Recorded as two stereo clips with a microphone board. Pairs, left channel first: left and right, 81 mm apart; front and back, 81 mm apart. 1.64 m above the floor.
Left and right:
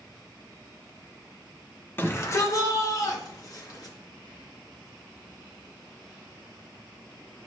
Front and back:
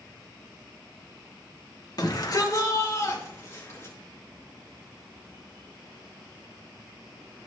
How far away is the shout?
About 1.3 m.